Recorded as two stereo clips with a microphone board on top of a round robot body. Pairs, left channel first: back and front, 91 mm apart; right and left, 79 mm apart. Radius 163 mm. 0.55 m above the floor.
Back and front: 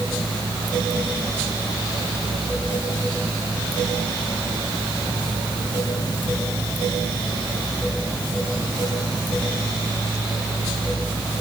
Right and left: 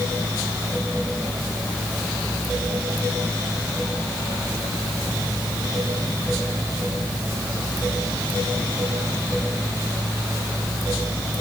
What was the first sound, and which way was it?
Only background noise.